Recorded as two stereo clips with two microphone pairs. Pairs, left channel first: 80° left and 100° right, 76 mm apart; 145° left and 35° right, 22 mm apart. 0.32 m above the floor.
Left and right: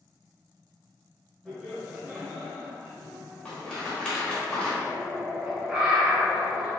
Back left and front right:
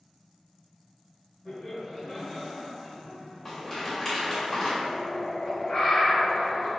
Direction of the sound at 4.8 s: 175° right.